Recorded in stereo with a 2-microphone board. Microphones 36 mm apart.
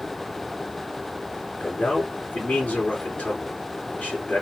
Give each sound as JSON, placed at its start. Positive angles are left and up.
{"t": 1.6, "sound": "a man speaking", "side_deg": 45, "distance_m": 2.5}